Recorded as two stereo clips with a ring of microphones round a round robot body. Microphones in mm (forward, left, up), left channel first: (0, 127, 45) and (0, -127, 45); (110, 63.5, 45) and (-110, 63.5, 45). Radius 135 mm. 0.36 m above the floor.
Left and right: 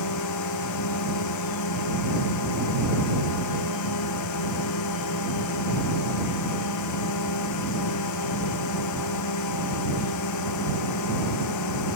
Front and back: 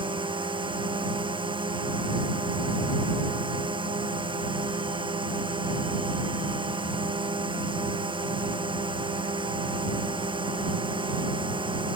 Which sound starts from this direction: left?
A drone, at 0.0 s.